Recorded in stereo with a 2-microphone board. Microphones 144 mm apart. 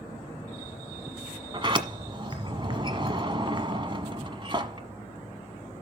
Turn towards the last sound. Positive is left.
turn(degrees=-35)  # may be behind; listen again after turning